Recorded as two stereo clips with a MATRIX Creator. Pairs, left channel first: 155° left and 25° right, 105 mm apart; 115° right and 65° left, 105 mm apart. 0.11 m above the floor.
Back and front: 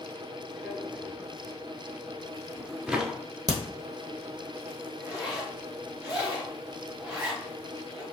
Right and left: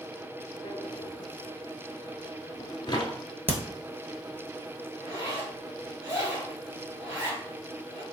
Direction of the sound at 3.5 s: 5° left.